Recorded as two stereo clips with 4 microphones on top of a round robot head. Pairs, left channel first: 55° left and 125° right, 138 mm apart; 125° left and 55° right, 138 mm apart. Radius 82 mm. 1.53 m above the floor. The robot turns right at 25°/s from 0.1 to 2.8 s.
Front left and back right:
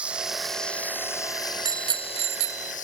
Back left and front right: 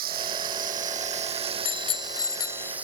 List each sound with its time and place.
0.0 s running water: 45° right; by 2.9 s 25° left
1.6 s a bicycle bell: 170° left; by 2.7 s 160° right